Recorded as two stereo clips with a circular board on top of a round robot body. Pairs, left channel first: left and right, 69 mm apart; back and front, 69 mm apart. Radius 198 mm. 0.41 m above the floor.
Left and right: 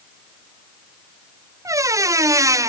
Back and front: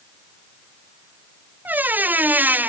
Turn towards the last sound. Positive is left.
turn(degrees=-60)